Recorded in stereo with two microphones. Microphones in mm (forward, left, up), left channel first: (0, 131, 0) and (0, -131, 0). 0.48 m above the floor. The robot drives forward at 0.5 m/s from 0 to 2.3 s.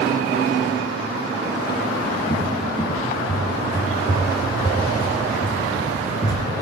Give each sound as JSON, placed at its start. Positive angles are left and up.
{"t": 2.3, "sound": "a cupboard door", "side_deg": 15, "distance_m": 2.5}